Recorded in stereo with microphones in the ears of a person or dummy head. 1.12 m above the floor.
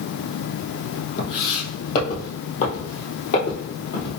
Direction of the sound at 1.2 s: 40° left (ahead or behind).